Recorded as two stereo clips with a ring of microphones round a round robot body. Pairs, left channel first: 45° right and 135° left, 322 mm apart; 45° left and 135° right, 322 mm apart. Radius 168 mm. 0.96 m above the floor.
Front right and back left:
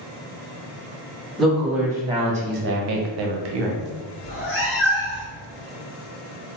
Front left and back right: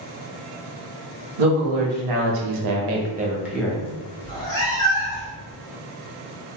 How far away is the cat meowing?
About 1.0 m.